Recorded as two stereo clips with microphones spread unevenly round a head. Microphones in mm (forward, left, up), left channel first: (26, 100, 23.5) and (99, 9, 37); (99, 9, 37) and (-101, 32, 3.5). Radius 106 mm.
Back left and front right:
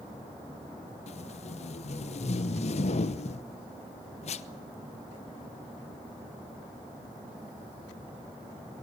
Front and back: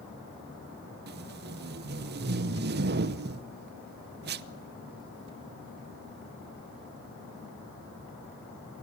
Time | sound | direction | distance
1.1 | tape being pulled | 145° left | 0.8 m